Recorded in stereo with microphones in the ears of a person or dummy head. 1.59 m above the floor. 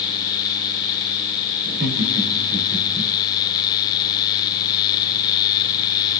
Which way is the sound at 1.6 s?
60° right (ahead or behind).